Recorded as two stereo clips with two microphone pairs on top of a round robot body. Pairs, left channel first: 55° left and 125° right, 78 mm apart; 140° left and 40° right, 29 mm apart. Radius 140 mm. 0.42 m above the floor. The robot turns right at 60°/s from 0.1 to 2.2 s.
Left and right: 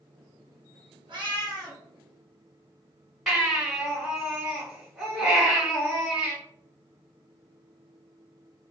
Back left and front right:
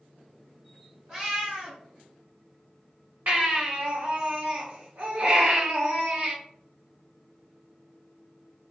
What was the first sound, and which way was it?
A cat meowing, 110° right.